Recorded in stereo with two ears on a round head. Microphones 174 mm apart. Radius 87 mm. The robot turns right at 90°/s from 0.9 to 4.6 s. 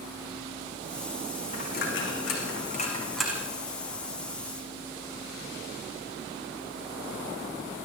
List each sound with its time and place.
1.5 s a dropped coin: 30° left (ahead or behind), 7 m; by 3.5 s 20° right (ahead or behind), 7 m